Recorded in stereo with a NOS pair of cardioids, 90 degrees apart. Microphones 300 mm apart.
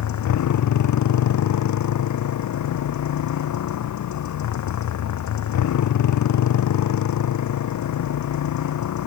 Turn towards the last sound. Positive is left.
turn(degrees=70)